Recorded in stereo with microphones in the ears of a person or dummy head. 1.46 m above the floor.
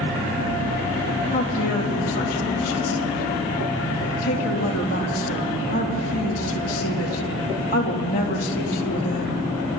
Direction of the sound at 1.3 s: 40° left (ahead or behind).